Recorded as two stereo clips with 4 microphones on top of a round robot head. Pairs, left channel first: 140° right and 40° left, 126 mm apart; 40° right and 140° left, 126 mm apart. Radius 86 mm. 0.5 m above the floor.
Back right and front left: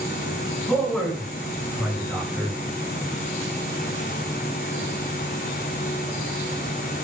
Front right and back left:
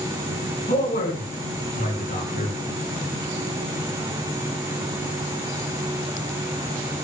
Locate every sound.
0.7 s a man speaking: 50° right, 8.5 m; by 2.6 s 30° right, 9 m